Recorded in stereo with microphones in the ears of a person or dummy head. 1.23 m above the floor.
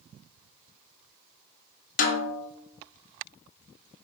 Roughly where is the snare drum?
Left.